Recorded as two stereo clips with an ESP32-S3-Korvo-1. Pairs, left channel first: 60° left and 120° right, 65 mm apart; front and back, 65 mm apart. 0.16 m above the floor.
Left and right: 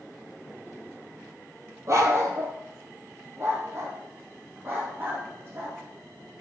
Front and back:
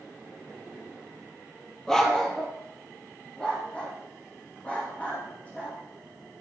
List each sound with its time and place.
1.9 s a dog barking: 80° right, 1.4 m; by 5.8 s 70° right, 4 m